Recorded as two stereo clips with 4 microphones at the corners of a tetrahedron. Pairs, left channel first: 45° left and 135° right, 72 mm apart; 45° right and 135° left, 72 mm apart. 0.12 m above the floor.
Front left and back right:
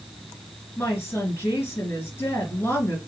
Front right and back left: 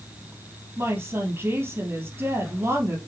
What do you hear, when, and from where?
0.8 s a woman speaking: 85° left, 2.5 m